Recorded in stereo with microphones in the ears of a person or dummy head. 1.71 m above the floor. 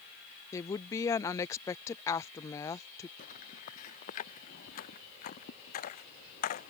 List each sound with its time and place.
0.5 s a woman speaking: 15° left (ahead or behind)
3.2 s footsteps: 45° left (ahead or behind)